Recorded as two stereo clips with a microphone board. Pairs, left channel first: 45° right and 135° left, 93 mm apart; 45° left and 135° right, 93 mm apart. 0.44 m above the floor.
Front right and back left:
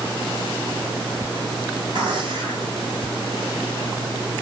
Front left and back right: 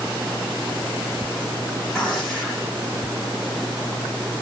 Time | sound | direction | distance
1.9 | a gunshot | 135° left | 2 m